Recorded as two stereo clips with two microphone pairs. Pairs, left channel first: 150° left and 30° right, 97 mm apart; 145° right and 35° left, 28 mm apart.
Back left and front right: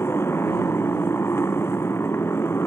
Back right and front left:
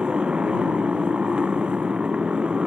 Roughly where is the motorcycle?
Left.